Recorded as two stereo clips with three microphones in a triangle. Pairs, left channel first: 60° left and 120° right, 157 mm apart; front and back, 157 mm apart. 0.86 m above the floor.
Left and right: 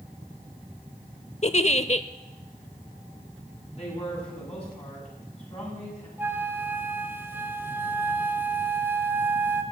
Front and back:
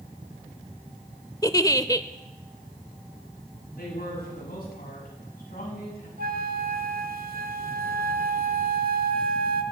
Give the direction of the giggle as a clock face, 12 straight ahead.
10 o'clock.